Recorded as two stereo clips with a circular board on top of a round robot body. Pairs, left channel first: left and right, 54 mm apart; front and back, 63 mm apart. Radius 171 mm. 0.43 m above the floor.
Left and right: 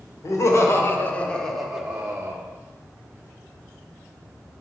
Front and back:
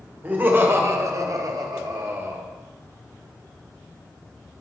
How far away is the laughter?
About 2 m.